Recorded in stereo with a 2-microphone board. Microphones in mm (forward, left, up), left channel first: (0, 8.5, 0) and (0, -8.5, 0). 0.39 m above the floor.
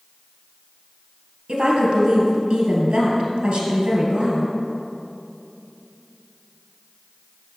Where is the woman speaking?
70° right (ahead or behind), 2.5 m.